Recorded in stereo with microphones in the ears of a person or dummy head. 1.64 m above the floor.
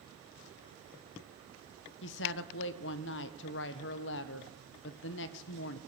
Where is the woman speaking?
65° left (ahead or behind), 1.3 m.